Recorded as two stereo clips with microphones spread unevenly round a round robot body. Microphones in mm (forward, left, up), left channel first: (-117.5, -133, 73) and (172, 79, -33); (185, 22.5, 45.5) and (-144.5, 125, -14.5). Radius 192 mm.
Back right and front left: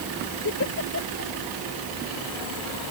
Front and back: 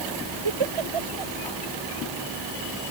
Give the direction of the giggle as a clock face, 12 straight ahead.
7 o'clock.